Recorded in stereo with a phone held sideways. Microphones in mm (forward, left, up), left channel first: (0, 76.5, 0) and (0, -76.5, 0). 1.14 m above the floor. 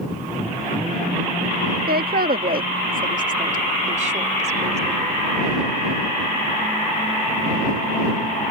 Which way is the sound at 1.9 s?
85° right.